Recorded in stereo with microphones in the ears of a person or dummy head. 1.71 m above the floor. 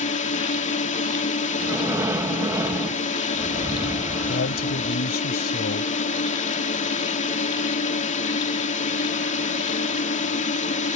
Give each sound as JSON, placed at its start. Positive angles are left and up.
{"t": 0.0, "sound": "a drone", "side_deg": 35}
{"t": 1.6, "sound": "breathing", "side_deg": -15}
{"t": 4.3, "sound": "a man speaking", "side_deg": 55}